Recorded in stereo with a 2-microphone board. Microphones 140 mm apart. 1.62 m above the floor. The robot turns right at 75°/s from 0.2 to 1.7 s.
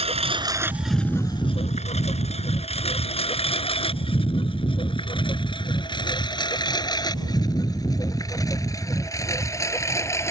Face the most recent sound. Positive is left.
turn(degrees=20)  # may be behind; listen again after turning